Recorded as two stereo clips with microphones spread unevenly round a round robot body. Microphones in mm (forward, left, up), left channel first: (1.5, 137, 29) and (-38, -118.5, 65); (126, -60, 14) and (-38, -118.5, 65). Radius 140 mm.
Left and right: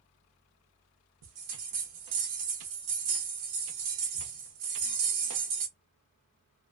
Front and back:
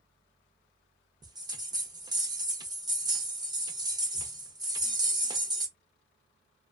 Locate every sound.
1.2 s a bell: 90° right, 0.8 m